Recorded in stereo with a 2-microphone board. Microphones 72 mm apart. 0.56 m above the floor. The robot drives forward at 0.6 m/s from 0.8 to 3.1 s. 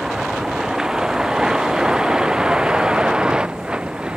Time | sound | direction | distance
0.0 | a vehicle | 5° right (ahead or behind) | ?